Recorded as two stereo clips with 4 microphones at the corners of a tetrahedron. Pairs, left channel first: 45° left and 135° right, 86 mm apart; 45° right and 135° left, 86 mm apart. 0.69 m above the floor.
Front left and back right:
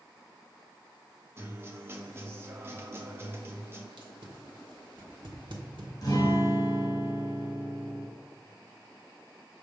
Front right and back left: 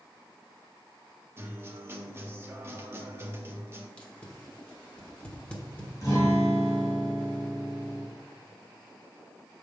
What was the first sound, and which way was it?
A guitar, straight behind.